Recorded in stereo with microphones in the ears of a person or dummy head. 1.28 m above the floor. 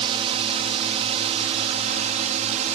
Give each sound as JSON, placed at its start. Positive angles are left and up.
{"t": 0.0, "sound": "a drone", "side_deg": -30}